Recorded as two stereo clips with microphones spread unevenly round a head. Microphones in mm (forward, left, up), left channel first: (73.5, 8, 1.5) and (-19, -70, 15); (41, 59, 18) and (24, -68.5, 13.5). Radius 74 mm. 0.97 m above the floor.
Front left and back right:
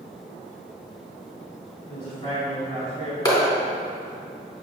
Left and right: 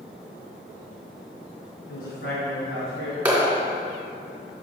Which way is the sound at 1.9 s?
95° left.